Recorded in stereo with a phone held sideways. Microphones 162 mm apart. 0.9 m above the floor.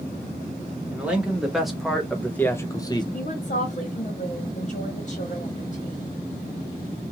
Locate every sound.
0.9 s a man speaking: 10° right (ahead or behind), 1.4 m; by 3.0 s 25° left (ahead or behind), 0.7 m
3.1 s a woman speaking: 50° left (ahead or behind), 1.3 m